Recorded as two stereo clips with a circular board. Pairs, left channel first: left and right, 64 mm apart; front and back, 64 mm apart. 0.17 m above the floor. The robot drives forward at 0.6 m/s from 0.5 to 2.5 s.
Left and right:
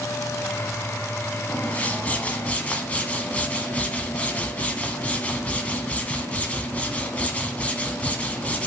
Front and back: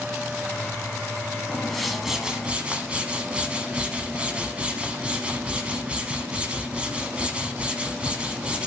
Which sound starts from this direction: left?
A whoosh, at 1.5 s.